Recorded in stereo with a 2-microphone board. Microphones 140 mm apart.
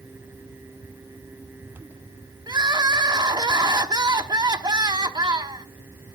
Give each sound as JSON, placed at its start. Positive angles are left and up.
{"t": 2.5, "sound": "crying", "side_deg": -30, "distance_m": 0.9}